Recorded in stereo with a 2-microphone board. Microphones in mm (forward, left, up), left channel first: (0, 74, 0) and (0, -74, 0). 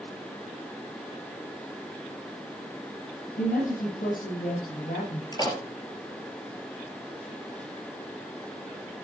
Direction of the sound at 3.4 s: 75° left (ahead or behind).